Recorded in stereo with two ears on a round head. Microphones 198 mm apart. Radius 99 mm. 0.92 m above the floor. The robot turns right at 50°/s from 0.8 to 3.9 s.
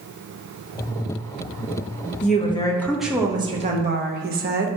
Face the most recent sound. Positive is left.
turn(degrees=-135)